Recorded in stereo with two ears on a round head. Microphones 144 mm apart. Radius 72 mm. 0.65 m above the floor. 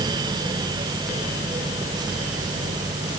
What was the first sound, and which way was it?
Only background noise.